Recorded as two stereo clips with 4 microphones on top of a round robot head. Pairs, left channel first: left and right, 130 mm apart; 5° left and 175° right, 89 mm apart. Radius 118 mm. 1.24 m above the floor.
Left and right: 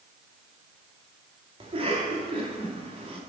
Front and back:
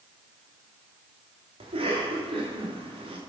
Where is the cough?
145° right, 2.5 m.